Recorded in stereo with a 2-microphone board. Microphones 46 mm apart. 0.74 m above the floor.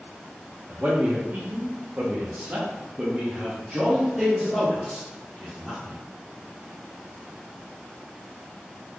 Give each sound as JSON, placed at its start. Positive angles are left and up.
{"t": 0.7, "sound": "a man speaking", "side_deg": -45, "distance_m": 1.3}